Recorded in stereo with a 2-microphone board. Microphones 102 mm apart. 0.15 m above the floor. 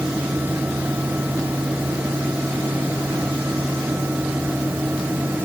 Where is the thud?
No thud in this recording.